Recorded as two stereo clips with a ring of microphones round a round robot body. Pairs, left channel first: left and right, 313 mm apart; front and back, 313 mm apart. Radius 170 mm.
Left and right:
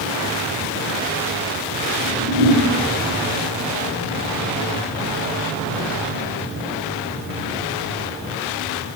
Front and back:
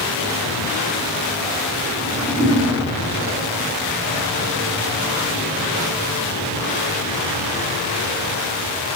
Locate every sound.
2.0 s a whoosh: 90° right, 3 m